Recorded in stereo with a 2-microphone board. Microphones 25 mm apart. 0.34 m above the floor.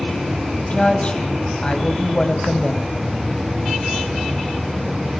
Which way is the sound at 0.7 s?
40° left (ahead or behind).